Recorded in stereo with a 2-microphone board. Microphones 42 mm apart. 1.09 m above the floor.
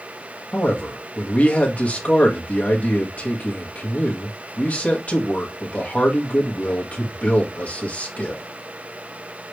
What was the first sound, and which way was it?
A man speaking, 35° left (ahead or behind).